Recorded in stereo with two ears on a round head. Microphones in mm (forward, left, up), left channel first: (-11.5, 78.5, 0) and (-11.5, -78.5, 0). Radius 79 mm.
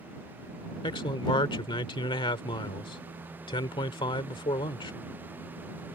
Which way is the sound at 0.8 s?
30° left (ahead or behind).